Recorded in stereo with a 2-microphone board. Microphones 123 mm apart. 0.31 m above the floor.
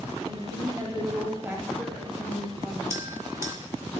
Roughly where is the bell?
Right.